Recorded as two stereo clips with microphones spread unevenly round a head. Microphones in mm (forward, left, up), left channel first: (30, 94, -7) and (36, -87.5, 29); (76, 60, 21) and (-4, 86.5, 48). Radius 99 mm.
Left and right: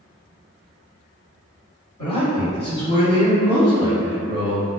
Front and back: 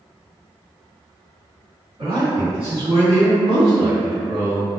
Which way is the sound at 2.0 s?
135° left.